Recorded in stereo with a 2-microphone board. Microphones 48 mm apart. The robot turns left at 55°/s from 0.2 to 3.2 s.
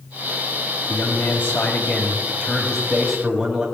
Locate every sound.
0.9 s a man speaking: 110° left, 2 m; by 3.7 s 20° right, 2 m